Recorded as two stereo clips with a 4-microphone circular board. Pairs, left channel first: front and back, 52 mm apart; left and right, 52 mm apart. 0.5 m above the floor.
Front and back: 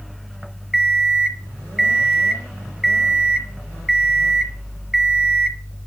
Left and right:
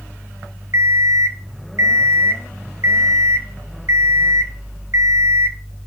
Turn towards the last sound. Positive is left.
turn(degrees=-95)